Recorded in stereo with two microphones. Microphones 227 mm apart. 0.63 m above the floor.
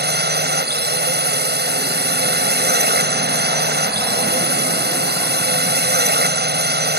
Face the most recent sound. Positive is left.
turn(degrees=-45)  # may be behind; listen again after turning